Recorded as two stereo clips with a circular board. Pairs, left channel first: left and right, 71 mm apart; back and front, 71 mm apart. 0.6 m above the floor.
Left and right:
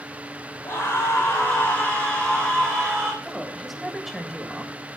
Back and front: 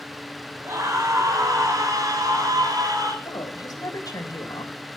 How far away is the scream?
About 2.5 m.